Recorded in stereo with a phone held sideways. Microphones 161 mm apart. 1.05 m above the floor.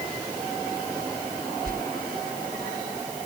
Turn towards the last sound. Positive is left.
turn(degrees=-65)  # may be behind; listen again after turning